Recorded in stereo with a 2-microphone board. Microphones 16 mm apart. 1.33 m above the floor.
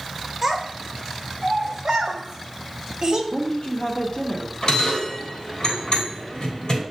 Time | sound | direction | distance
0.4 | a child speaking | 25° right (ahead or behind) | 3 m
3.3 | a woman speaking | 60° left (ahead or behind) | 0.9 m
4.6 | a bell | 50° left (ahead or behind) | 3 m